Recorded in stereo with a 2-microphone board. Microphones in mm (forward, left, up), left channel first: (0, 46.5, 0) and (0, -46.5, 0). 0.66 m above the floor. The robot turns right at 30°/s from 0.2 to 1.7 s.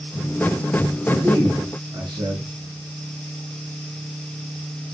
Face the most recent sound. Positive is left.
turn(degrees=-50)  # may be behind; listen again after turning